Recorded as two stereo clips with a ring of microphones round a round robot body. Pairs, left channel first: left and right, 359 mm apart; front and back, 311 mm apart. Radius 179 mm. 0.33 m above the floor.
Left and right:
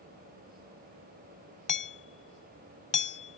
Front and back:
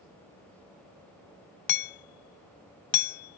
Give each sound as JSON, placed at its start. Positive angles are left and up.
{"t": 1.7, "sound": "hammering", "azimuth_deg": 20}